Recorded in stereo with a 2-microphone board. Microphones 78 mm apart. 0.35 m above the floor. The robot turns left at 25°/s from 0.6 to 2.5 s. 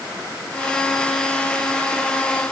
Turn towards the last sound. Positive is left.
No sound to turn to.